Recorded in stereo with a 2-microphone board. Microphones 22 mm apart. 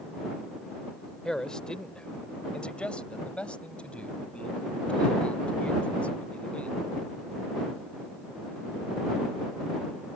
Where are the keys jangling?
I don't hear keys jangling.